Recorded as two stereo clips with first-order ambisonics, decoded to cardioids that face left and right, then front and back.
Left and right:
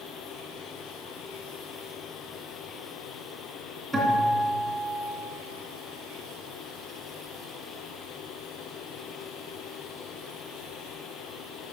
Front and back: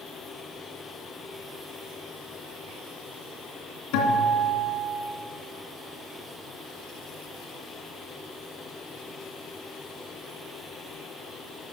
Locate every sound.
3.9 s a guitar: 5° right, 2.5 m